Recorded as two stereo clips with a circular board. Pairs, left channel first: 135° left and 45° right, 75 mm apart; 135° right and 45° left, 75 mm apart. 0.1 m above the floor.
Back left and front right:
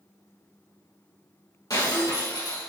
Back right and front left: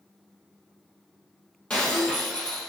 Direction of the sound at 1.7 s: 155° left.